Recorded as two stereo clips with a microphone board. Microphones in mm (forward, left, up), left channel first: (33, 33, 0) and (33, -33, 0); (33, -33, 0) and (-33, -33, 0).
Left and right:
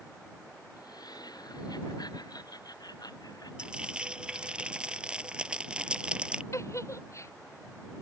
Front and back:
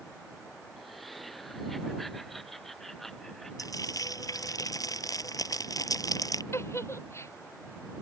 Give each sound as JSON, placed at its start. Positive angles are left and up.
{"t": 0.8, "sound": "laughter", "azimuth_deg": 90}
{"t": 3.6, "sound": "frying", "azimuth_deg": -15}
{"t": 6.5, "sound": "a giggle", "azimuth_deg": 50}